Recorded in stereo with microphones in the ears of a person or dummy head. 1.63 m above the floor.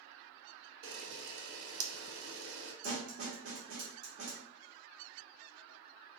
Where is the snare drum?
70° right (ahead or behind), 1.3 m.